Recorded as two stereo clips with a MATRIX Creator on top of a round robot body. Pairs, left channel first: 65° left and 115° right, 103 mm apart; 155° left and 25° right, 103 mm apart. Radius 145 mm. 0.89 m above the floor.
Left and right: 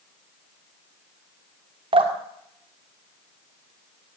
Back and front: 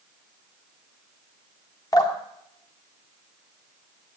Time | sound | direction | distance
1.9 | dripping | 150° right | 2 m